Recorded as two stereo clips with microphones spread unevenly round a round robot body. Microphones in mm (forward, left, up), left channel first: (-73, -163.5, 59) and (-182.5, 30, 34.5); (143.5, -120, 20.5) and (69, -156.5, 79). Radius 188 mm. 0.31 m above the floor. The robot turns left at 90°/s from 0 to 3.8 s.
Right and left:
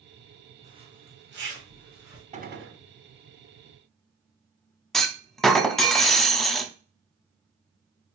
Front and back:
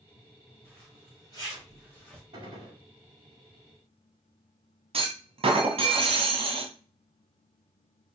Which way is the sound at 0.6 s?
170° right.